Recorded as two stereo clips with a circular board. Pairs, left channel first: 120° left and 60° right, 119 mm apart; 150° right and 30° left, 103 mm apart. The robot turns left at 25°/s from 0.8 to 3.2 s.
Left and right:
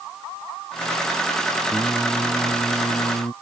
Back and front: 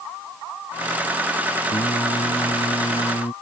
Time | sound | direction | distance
1.7 | singing | 145° right | ?